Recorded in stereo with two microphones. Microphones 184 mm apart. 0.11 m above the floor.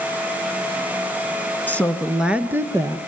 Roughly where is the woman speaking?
Centre.